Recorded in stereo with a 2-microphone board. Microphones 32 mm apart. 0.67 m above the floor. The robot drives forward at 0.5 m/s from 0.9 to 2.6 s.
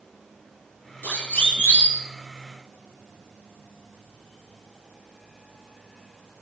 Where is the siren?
65° left (ahead or behind), 7 m.